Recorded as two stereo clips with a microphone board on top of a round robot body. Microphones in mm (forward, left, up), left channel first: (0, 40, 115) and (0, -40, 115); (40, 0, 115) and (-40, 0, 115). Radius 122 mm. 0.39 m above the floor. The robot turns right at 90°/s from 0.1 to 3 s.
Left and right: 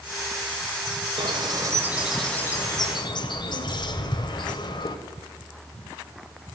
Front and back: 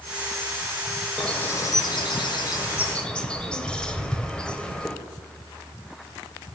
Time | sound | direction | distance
1.2 | a bird | 85° right | 1.9 m